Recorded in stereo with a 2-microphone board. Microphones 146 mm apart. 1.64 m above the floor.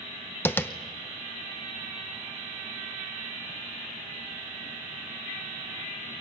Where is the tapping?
15° left (ahead or behind), 0.8 m.